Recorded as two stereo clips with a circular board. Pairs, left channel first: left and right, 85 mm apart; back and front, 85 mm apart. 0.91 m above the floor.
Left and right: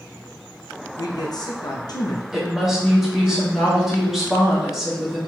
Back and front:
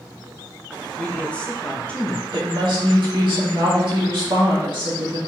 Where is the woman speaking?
5° right, 2 m.